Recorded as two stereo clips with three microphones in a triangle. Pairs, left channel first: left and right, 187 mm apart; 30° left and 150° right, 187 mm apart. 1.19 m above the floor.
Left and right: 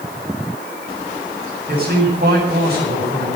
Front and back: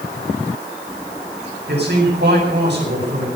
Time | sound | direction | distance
1.7 | a man speaking | 125° right | 8.5 m